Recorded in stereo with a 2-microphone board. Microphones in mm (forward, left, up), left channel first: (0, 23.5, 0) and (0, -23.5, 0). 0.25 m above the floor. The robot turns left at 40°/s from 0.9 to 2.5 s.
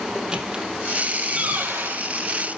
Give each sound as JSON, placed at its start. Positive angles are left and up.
{"t": 0.1, "sound": "a squeak", "side_deg": -15, "distance_m": 3.5}